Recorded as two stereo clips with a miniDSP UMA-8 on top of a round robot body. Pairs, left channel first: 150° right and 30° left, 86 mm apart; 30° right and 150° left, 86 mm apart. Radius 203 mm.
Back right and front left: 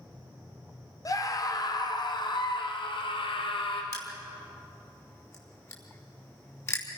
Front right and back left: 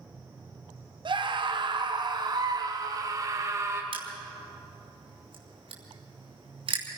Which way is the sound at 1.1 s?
165° left.